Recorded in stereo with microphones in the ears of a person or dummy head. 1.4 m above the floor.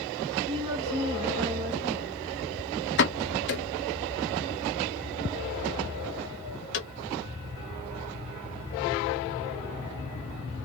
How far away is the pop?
About 0.6 m.